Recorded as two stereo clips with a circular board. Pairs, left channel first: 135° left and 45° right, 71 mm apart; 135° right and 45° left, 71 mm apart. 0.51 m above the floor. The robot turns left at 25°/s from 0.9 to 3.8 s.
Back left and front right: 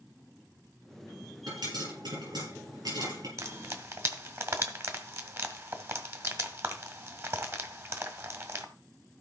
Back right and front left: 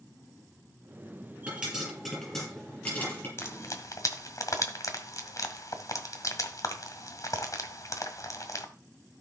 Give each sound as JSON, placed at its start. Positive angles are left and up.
{"t": 1.5, "sound": "a pop", "azimuth_deg": -25, "distance_m": 6.5}
{"t": 3.4, "sound": "frying", "azimuth_deg": -80, "distance_m": 1.8}